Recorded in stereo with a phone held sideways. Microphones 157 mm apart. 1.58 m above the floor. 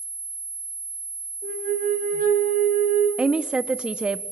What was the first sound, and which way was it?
A flute, 65° right (ahead or behind).